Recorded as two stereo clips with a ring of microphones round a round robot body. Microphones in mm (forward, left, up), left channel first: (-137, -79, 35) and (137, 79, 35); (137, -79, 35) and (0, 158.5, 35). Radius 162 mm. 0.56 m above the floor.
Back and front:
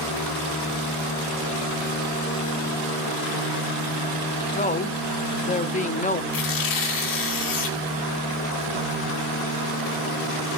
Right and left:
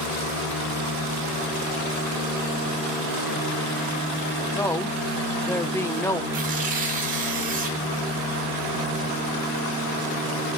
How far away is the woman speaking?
About 0.8 m.